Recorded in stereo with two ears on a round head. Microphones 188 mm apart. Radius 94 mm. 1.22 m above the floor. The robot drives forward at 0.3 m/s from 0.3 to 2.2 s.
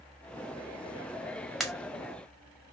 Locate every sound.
1.6 s a pop: centre (ahead or behind), 0.5 m